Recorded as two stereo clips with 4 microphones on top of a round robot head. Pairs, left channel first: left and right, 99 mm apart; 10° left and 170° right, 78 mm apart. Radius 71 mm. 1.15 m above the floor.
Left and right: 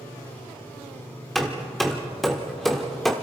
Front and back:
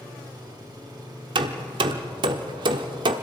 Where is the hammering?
Straight behind, 1.1 m.